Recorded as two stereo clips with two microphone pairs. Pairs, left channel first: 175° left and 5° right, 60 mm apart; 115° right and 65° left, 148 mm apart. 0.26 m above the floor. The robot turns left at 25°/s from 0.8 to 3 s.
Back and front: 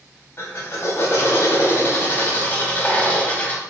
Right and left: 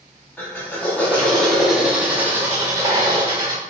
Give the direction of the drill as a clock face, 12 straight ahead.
6 o'clock.